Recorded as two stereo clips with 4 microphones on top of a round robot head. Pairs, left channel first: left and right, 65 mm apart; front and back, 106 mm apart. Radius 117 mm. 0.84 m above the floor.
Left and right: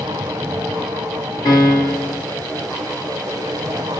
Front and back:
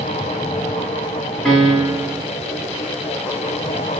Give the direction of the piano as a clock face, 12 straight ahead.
9 o'clock.